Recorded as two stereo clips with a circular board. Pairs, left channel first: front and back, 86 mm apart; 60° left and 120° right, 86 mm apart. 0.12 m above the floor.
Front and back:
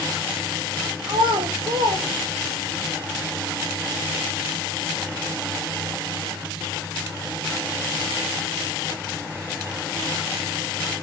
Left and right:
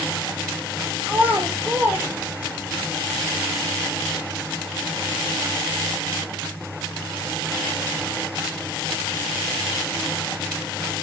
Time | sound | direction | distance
1.1 | a child speaking | 170° left | 4 m